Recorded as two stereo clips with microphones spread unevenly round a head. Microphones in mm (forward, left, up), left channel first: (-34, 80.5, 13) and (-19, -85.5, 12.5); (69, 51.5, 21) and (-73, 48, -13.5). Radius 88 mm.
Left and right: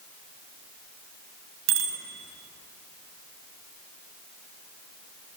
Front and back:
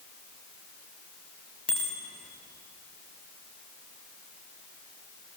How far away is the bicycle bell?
About 5 m.